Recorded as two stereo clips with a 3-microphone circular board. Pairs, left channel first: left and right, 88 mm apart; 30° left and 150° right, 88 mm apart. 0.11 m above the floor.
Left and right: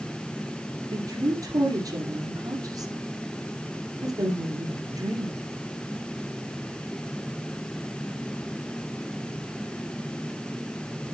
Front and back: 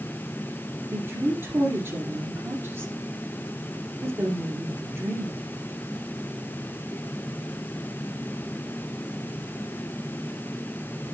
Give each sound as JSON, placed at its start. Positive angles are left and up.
{"t": 0.9, "sound": "a woman speaking", "azimuth_deg": -100, "distance_m": 2.5}